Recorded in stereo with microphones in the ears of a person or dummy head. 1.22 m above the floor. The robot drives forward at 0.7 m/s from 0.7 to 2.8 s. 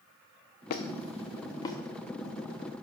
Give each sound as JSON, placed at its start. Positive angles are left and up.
{"t": 0.7, "sound": "a squeak", "side_deg": 45, "distance_m": 0.6}